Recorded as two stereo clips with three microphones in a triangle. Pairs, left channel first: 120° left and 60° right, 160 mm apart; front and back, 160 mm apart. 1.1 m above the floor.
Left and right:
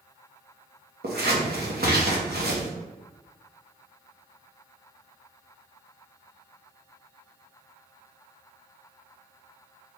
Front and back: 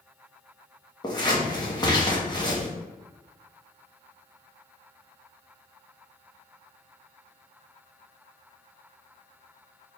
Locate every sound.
1.0 s scissors: 65° right, 0.9 m